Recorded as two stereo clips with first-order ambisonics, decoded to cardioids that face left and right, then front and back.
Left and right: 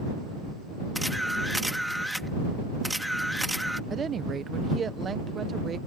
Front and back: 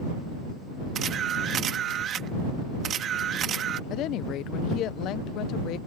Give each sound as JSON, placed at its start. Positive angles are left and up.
{"t": 0.9, "sound": "a camera shutter", "azimuth_deg": 180}
{"t": 3.9, "sound": "a woman speaking", "azimuth_deg": -25}